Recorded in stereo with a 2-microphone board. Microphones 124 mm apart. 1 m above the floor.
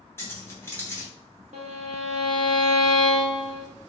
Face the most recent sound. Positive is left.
turn(degrees=-70)  # may be behind; listen again after turning